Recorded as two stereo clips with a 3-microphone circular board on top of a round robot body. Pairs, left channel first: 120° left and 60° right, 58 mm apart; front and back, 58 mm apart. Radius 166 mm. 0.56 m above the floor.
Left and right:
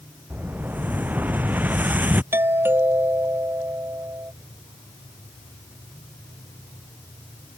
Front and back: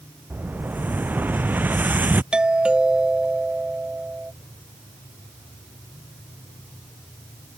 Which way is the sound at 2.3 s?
105° right.